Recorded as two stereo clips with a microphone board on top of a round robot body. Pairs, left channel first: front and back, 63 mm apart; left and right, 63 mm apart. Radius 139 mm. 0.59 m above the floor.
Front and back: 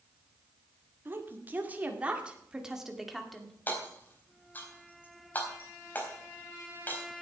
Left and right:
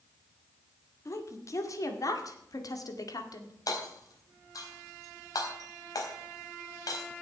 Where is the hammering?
65° left, 4 m.